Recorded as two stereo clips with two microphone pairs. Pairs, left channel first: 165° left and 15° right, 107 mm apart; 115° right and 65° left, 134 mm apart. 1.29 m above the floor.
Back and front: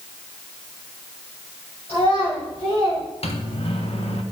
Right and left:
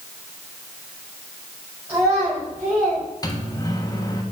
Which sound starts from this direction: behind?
A microwave, at 3.2 s.